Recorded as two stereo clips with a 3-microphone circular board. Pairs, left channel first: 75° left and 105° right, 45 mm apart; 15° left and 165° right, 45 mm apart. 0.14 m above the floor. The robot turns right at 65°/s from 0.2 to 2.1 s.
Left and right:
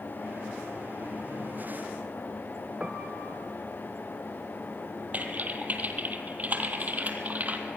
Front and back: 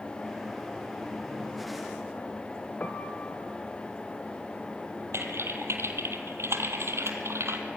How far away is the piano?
About 0.9 m.